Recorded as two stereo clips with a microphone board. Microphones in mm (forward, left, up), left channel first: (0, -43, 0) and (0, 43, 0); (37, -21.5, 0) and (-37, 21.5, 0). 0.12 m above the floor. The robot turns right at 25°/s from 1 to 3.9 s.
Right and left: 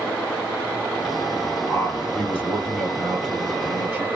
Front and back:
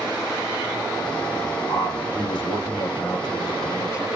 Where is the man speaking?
30° right, 2 m; by 4.1 s 25° left, 2 m.